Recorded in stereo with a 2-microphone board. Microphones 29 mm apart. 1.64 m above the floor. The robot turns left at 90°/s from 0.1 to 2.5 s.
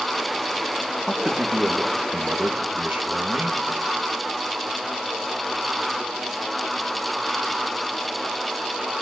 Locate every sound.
1.1 s a man speaking: 5° left, 2 m; by 3.6 s 125° right, 2 m